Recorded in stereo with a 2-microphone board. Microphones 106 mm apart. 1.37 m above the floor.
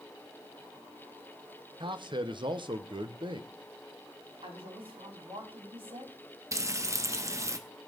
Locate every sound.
1.8 s a man speaking: 50° right (ahead or behind), 1.2 m
4.4 s a woman speaking: 60° right (ahead or behind), 4.5 m
6.5 s frying: 30° right (ahead or behind), 1.2 m